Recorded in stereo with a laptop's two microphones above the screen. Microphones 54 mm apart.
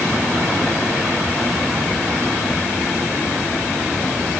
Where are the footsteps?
I don't hear footsteps.